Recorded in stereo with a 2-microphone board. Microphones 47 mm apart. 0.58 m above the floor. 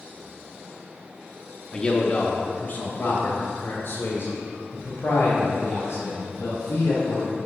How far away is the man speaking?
About 0.8 m.